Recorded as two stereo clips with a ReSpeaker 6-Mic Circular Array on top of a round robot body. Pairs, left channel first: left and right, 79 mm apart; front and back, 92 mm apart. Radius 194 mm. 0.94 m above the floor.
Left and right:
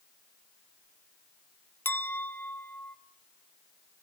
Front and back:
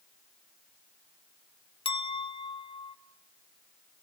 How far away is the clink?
About 1.2 m.